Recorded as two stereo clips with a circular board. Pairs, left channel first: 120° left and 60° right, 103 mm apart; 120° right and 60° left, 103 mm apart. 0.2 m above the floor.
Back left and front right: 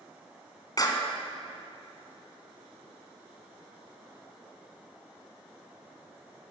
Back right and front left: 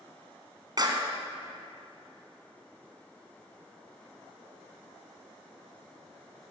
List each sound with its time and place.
0.8 s a clap: 85° left, 1.9 m